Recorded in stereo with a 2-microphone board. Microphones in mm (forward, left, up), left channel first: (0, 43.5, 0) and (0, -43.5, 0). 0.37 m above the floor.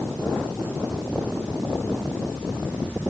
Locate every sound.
Only background noise.